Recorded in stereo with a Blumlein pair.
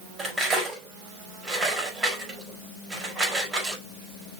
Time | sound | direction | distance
0.2 | cutlery clinking | 20° right | 4.5 m